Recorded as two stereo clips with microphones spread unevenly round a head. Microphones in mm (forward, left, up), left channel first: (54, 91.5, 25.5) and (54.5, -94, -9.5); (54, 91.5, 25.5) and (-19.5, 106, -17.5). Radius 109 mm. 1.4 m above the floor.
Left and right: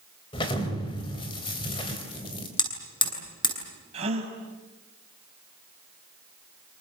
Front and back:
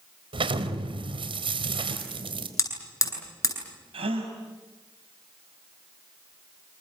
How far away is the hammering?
About 9.5 m.